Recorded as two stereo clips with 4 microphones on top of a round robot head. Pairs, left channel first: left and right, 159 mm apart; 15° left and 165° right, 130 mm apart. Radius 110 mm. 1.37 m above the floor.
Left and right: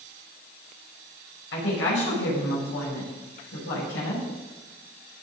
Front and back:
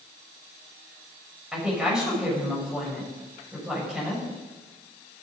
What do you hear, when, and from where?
1.5 s a woman speaking: 110° left, 6.5 m